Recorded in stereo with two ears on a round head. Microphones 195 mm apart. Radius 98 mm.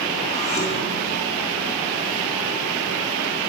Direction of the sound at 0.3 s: 35° left (ahead or behind).